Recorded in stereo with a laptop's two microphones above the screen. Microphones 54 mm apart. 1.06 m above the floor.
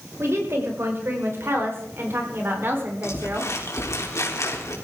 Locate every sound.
0.2 s a woman speaking: 55° right (ahead or behind), 5 m; by 3.5 s 40° right (ahead or behind), 3.5 m
3.0 s crumpling: 65° left (ahead or behind), 3.5 m